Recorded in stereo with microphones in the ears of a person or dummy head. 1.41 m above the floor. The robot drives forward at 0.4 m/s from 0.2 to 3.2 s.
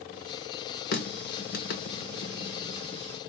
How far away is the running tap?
About 0.8 m.